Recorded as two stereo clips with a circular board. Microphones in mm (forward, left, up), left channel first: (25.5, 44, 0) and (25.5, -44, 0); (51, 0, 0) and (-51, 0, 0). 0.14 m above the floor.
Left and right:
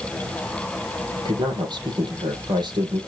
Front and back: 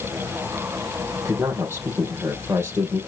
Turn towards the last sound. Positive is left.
turn(degrees=-115)